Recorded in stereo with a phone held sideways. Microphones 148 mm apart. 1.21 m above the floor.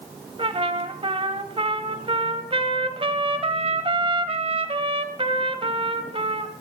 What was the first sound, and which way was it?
A trumpet, 40° right (ahead or behind).